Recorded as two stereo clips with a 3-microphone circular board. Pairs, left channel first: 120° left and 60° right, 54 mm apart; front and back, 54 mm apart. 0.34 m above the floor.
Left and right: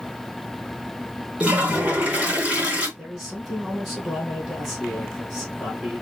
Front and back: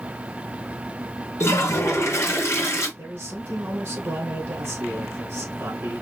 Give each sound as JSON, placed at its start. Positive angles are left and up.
{"t": 1.4, "sound": "a toilet flushing", "azimuth_deg": 0, "distance_m": 2.0}
{"t": 3.0, "sound": "a man speaking", "azimuth_deg": -150, "distance_m": 2.5}